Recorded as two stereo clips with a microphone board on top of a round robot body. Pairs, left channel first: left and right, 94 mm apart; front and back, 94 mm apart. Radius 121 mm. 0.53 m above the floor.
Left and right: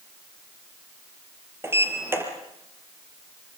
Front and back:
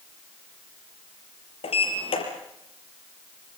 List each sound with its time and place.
1.6 s a sliding door: 25° right, 4.5 m